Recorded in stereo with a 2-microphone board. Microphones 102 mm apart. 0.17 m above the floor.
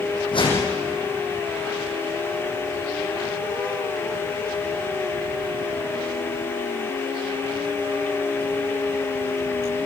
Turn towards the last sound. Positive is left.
turn(degrees=55)  # may be behind; listen again after turning